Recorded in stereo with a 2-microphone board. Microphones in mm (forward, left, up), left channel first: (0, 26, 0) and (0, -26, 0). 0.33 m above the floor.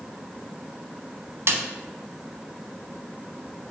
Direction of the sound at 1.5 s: 55° right (ahead or behind).